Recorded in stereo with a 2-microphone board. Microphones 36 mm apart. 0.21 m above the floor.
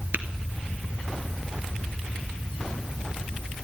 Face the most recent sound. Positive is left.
turn(degrees=-65)  # may be behind; listen again after turning